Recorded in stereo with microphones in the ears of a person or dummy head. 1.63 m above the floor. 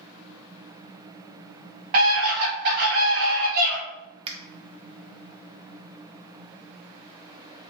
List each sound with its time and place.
1.9 s a scream: 70° right (ahead or behind), 1.1 m
4.3 s a finger snap: 35° right (ahead or behind), 0.5 m